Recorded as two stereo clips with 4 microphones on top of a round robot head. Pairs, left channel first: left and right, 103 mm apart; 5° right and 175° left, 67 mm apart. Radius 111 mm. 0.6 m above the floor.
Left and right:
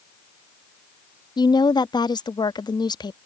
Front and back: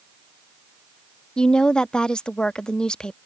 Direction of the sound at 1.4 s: 70° left.